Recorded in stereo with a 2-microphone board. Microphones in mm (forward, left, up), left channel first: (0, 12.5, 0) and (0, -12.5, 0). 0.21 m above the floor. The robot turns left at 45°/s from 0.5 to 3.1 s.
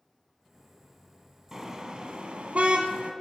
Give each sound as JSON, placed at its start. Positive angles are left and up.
{"t": 1.5, "sound": "a car horn", "side_deg": -20, "distance_m": 2.0}